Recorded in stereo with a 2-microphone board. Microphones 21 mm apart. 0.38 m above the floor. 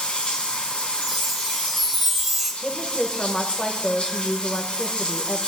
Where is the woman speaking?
35° left (ahead or behind), 1.0 m.